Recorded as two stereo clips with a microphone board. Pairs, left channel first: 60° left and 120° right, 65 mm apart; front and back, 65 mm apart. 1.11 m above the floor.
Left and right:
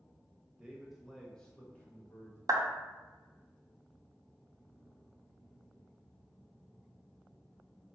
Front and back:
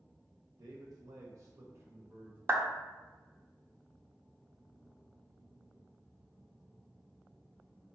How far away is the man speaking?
About 1.0 m.